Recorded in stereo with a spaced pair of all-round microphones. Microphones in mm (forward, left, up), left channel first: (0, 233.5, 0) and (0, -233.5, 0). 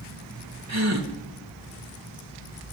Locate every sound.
0.7 s a gasp: 35° right (ahead or behind), 1.5 m